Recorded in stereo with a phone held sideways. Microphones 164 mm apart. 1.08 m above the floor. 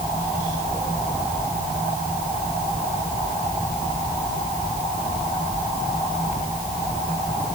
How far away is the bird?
I don't hear a bird.